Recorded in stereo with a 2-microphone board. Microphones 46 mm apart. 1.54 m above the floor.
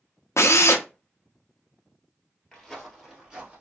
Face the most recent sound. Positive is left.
turn(degrees=-25)  # may be behind; listen again after turning